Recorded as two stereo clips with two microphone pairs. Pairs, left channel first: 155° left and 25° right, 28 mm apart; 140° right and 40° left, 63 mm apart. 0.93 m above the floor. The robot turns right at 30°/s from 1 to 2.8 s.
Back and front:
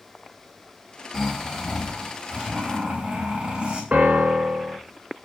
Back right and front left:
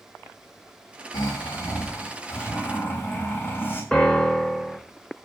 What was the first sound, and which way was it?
Snoring, 130° right.